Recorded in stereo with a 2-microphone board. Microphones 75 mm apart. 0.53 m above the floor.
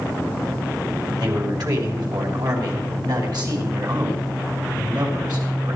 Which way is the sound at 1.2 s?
65° right (ahead or behind).